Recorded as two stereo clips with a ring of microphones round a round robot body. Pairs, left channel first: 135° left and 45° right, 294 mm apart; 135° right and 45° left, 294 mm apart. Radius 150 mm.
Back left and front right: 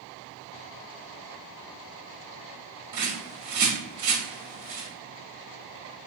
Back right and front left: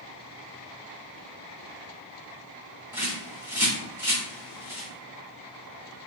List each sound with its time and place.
2.9 s a bird: 35° right, 1.4 m